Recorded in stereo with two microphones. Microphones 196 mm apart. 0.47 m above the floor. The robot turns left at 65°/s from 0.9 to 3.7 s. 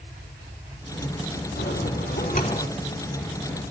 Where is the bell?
95° left, 4.5 m; by 2.7 s 25° left, 4.5 m.